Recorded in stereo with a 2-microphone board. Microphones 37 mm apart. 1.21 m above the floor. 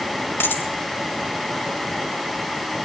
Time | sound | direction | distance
0.4 | a dropped coin | 80° left | 3.5 m